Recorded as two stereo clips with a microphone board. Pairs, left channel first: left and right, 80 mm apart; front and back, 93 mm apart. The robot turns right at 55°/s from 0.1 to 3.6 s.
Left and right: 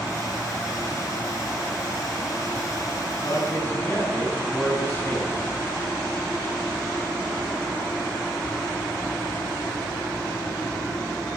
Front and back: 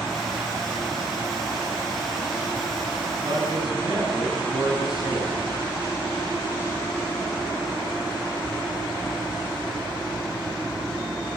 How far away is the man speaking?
About 9 m.